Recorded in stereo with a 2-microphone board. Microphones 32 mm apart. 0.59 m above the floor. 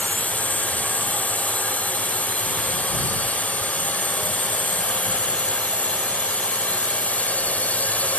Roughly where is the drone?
Left.